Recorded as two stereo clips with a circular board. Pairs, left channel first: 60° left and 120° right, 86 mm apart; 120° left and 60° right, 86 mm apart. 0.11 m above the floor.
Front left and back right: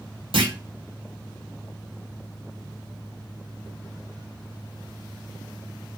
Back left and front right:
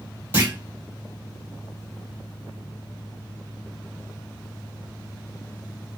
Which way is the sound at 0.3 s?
125° right.